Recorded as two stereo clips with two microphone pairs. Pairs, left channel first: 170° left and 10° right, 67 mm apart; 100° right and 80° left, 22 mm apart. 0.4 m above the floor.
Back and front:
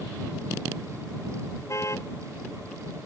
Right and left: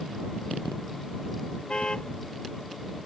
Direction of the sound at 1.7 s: 145° right.